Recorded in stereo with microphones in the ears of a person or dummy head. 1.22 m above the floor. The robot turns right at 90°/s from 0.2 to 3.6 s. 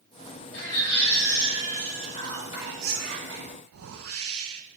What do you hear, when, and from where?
0.5 s a baby crying: 55° left, 3 m; by 2.9 s 85° right, 3 m
1.9 s whispering: 135° left, 4 m; by 3.5 s 90° right, 4 m
3.7 s a whoosh: 70° right (ahead or behind), 1.3 m